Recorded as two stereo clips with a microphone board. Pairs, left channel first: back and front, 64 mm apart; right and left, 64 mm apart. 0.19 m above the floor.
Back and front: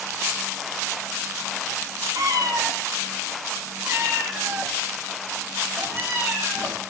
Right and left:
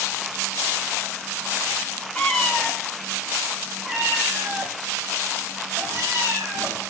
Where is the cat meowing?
15° right, 1.2 m; by 6.8 s 55° left, 2.5 m.